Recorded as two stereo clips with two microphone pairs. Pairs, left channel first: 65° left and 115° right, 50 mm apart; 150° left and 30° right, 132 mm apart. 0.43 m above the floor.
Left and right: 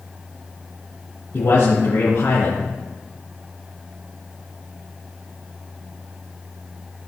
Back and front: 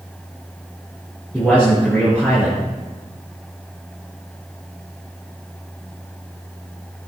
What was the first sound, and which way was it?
A man speaking, 75° left.